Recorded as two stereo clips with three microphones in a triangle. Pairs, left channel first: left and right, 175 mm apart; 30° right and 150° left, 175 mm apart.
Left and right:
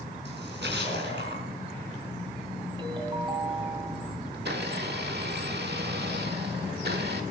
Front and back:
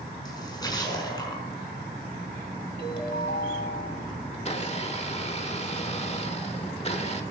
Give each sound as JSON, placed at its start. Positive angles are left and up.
{"t": 0.2, "sound": "a splash", "azimuth_deg": -95, "distance_m": 5.0}
{"t": 2.8, "sound": "a ringtone", "azimuth_deg": -25, "distance_m": 1.8}
{"t": 4.3, "sound": "a blender", "azimuth_deg": -80, "distance_m": 1.6}